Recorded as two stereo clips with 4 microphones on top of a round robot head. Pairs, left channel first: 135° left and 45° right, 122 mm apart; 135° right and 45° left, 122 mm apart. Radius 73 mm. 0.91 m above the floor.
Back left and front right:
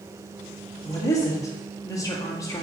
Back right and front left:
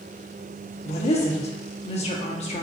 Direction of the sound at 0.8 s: 165° right.